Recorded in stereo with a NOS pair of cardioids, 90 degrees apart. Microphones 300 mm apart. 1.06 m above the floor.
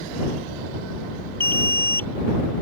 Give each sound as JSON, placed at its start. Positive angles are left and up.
{"t": 1.4, "sound": "an alarm", "azimuth_deg": 10}